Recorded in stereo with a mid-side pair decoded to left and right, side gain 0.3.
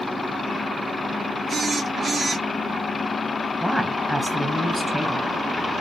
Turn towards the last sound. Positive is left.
turn(degrees=-5)